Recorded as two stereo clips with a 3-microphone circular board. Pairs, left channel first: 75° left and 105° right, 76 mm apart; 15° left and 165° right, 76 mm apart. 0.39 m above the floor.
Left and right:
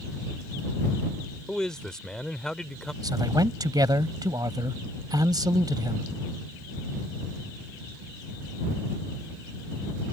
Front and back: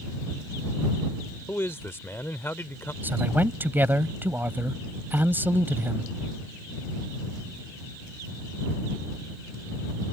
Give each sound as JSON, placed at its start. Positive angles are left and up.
{"t": 1.5, "sound": "a man speaking", "azimuth_deg": 0}
{"t": 3.0, "sound": "a man speaking", "azimuth_deg": -105}